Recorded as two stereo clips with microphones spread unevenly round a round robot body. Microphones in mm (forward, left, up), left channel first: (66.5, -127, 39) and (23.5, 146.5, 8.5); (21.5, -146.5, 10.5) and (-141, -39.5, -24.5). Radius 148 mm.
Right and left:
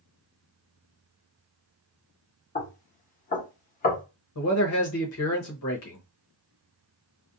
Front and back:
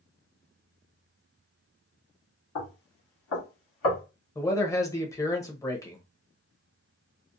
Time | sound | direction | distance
2.5 | knocking | 20° right | 1.0 m
4.3 | a man speaking | 115° right | 0.8 m